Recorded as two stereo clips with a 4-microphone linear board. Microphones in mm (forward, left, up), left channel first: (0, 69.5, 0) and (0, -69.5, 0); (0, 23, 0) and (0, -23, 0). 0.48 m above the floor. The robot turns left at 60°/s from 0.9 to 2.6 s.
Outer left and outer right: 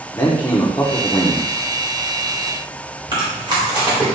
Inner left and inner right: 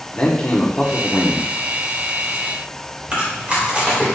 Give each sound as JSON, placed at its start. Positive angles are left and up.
{"t": 0.1, "sound": "a man speaking", "azimuth_deg": 35, "distance_m": 0.8}
{"t": 3.1, "sound": "chewing", "side_deg": -35, "distance_m": 1.7}